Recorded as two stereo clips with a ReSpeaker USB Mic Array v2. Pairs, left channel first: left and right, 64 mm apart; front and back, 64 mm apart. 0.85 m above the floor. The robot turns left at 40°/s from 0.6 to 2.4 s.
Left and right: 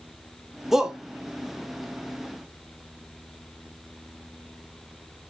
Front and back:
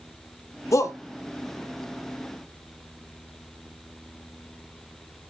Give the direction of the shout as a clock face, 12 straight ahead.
12 o'clock.